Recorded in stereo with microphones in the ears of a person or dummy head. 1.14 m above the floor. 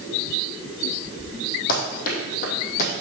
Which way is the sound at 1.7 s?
55° left (ahead or behind).